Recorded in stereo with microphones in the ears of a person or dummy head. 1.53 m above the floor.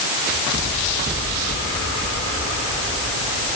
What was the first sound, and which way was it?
Only background noise.